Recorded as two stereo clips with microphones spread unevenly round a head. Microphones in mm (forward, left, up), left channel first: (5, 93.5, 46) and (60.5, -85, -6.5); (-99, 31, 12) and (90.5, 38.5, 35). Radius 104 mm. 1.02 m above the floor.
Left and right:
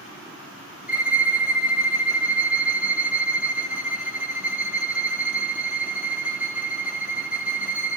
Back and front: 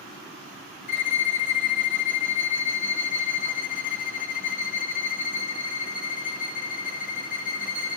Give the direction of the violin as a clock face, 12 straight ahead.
6 o'clock.